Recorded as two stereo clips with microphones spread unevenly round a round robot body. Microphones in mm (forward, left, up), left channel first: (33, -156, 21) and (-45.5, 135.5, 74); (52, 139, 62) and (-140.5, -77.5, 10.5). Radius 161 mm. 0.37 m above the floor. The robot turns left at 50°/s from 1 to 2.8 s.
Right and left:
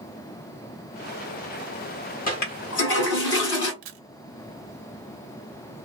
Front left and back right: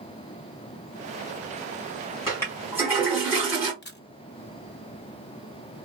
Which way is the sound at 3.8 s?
105° left.